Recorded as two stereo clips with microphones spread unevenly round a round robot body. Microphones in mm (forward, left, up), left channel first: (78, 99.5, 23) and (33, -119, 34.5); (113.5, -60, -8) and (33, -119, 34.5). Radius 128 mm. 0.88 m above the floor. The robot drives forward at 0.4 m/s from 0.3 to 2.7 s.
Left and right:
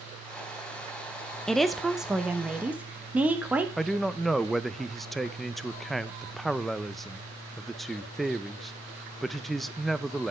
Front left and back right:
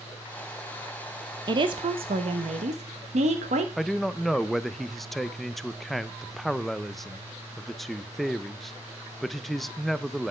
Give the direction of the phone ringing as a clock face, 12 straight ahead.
No phone ringing in this recording.